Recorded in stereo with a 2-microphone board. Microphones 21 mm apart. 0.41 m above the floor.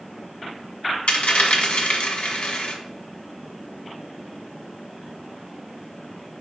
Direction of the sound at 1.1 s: 70° left (ahead or behind).